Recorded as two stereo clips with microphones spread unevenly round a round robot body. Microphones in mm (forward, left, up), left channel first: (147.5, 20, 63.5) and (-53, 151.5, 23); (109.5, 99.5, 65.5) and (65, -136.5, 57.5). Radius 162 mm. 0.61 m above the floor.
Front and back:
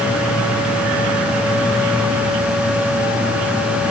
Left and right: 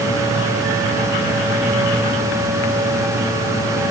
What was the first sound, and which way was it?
Only background noise.